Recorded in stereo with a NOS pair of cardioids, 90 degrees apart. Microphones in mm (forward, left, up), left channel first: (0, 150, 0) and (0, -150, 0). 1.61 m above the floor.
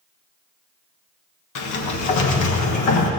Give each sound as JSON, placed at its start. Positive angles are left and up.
{"t": 1.6, "sound": "a sliding door", "azimuth_deg": 70, "distance_m": 1.3}